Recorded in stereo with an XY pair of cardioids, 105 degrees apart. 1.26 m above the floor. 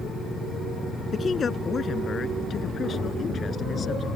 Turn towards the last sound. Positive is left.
turn(degrees=45)